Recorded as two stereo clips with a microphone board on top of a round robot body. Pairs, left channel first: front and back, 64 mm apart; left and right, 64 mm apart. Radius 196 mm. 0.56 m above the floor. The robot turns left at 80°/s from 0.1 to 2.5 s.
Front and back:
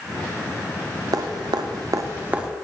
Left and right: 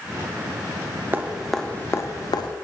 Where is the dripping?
150° right, 0.6 m; by 2.5 s 100° left, 0.6 m.